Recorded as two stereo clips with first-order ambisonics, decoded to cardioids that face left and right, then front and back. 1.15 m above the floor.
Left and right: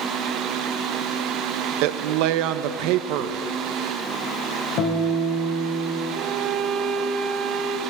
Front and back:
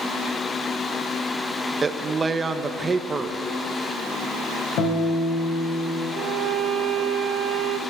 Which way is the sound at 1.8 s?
105° right.